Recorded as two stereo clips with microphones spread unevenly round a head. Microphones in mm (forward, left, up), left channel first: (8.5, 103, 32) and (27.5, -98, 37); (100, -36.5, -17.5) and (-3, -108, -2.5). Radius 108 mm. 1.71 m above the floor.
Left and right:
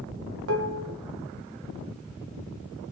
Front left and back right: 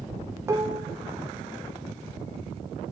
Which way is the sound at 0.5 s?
85° right.